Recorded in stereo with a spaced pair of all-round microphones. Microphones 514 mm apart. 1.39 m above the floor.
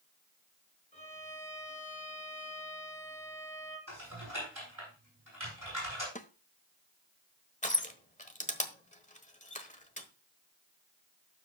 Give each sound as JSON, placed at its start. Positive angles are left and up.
{"t": 0.9, "sound": "a violin", "side_deg": 15, "distance_m": 4.0}
{"t": 3.9, "sound": "typing on a keyboard", "side_deg": -40, "distance_m": 10.0}
{"t": 6.2, "sound": "a snare drum", "side_deg": 15, "distance_m": 0.7}
{"t": 7.6, "sound": "crushing", "side_deg": 15, "distance_m": 1.1}